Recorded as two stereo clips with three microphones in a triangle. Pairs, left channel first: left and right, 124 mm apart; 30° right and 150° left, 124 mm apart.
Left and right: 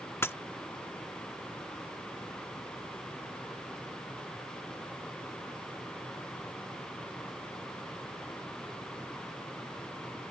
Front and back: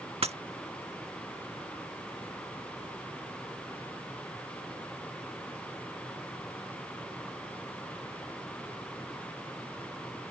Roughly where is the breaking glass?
Behind left.